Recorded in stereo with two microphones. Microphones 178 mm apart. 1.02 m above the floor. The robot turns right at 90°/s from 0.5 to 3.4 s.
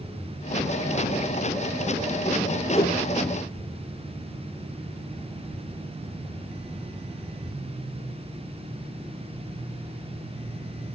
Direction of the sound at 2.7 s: 25° left (ahead or behind).